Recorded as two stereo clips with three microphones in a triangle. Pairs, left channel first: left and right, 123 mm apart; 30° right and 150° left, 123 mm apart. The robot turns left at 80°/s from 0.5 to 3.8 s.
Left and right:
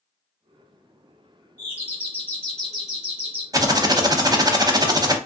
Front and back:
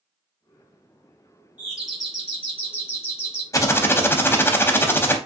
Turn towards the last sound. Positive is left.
turn(degrees=-85)